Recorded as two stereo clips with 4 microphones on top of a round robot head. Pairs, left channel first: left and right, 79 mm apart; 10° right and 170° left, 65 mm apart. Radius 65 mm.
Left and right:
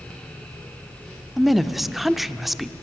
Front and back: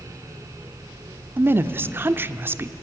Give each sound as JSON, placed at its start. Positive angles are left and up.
{"t": 1.4, "sound": "a woman speaking", "azimuth_deg": -175, "distance_m": 1.0}